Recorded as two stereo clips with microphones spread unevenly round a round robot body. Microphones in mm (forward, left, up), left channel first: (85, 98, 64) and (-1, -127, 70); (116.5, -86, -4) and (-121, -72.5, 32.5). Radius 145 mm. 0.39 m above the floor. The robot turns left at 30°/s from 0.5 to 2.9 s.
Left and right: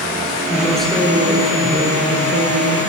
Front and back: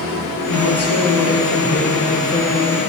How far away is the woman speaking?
About 7 m.